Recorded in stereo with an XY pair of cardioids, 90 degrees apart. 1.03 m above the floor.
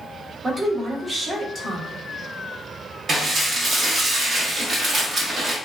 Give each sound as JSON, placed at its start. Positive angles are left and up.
{"t": 0.4, "sound": "a woman speaking", "azimuth_deg": -35, "distance_m": 1.2}
{"t": 3.1, "sound": "dishes clattering", "azimuth_deg": -55, "distance_m": 1.2}